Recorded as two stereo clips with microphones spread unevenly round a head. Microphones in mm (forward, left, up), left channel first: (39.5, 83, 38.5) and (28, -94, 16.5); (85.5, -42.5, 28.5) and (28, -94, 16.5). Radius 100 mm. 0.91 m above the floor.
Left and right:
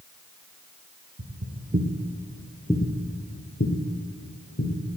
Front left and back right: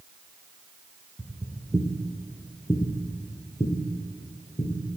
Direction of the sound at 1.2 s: 65° right.